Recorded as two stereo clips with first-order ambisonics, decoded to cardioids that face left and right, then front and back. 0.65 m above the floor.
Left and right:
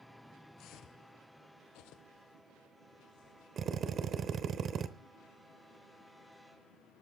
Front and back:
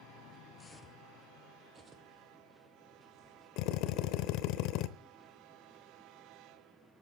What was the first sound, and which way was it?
Footsteps, 65° left.